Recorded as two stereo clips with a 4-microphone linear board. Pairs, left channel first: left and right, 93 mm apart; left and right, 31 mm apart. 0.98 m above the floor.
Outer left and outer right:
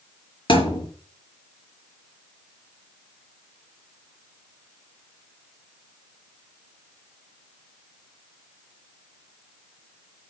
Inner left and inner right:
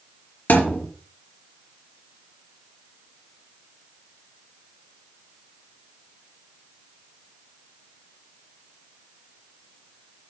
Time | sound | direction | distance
0.5 | a thud | 65° left (ahead or behind) | 4.5 m